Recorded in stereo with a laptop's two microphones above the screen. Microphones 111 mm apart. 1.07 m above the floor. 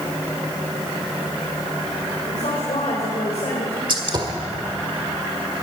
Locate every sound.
2.3 s a woman speaking: 70° left (ahead or behind), 4 m
3.9 s a gunshot: 45° right (ahead or behind), 1.3 m